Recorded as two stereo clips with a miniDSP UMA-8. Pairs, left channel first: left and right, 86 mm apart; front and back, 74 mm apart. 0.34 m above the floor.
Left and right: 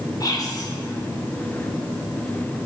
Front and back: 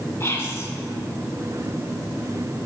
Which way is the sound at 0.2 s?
50° left.